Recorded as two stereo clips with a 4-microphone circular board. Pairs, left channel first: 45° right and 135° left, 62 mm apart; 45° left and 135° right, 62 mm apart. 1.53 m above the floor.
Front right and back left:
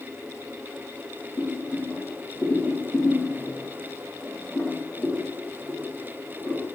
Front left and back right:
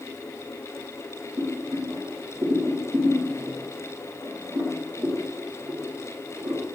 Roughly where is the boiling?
Behind right.